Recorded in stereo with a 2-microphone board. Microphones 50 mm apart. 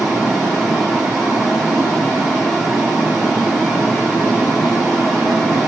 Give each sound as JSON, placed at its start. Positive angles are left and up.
{"t": 0.0, "sound": "running water", "side_deg": -5, "distance_m": 8.5}